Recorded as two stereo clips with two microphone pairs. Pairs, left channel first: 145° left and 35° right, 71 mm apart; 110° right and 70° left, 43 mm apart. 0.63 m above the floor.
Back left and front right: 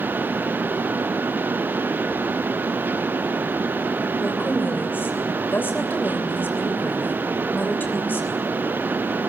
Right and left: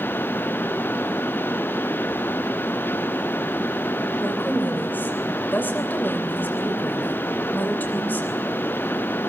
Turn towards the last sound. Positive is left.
turn(degrees=-155)